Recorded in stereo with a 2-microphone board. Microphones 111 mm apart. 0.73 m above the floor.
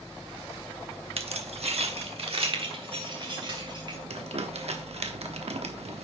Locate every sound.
1.2 s keys jangling: 60° right (ahead or behind), 0.7 m; by 4.0 s 45° right (ahead or behind), 2.5 m
4.1 s crumpling: 65° right (ahead or behind), 0.9 m